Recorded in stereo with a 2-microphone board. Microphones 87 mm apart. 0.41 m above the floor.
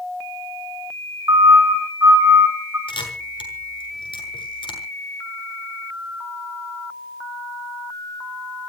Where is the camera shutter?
80° left, 7 m.